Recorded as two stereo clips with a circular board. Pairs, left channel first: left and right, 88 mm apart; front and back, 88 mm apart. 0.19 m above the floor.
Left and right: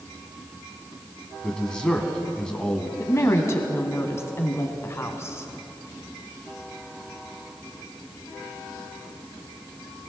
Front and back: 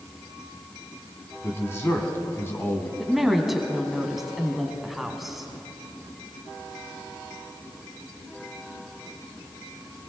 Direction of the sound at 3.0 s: 95° left.